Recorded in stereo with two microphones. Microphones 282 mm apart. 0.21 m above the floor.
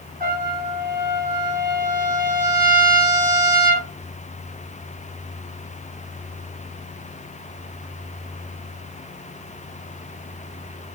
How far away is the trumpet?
About 1.7 m.